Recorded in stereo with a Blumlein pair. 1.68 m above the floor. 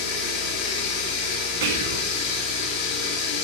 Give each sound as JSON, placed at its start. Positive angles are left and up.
{"t": 0.0, "sound": "running water", "azimuth_deg": 40, "distance_m": 2.5}
{"t": 1.6, "sound": "whispering", "azimuth_deg": -50, "distance_m": 2.0}